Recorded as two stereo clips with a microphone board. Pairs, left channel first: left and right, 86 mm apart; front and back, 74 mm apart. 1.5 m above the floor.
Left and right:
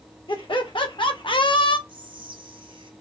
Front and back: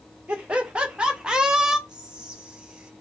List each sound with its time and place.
0.3 s laughter: 105° left, 1.6 m; by 1.8 s 95° left, 0.8 m
1.9 s whispering: 100° right, 1.1 m